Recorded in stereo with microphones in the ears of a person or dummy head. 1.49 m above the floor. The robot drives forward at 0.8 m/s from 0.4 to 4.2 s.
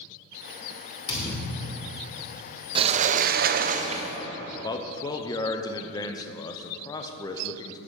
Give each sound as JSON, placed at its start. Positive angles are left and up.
{"t": 1.1, "sound": "a thud", "side_deg": 25, "distance_m": 2.0}
{"t": 2.8, "sound": "a sliding door", "side_deg": -30, "distance_m": 0.7}
{"t": 4.6, "sound": "a man speaking", "side_deg": 20, "distance_m": 0.8}